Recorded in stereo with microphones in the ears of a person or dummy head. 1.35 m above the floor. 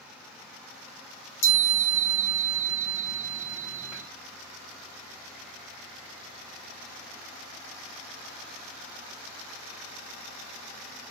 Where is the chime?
60° left (ahead or behind), 2.5 m.